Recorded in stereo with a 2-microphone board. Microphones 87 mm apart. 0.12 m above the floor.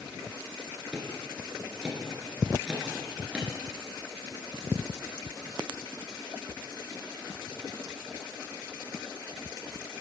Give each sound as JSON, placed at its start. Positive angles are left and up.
{"t": 0.9, "sound": "ticking", "side_deg": -10, "distance_m": 1.5}